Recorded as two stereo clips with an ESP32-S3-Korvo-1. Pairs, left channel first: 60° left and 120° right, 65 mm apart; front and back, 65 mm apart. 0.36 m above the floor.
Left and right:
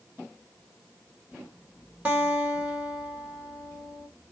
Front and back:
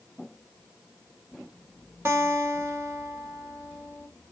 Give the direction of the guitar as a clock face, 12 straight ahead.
6 o'clock.